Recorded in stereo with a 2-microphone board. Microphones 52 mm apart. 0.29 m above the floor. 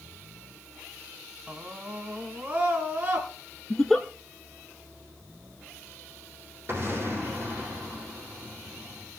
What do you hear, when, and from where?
1.5 s a scream: 20° right (ahead or behind), 1.8 m; by 3.3 s 30° right (ahead or behind), 3.5 m
3.7 s a giggle: 5° left (ahead or behind), 1.0 m
6.7 s an explosion: 40° right (ahead or behind), 7 m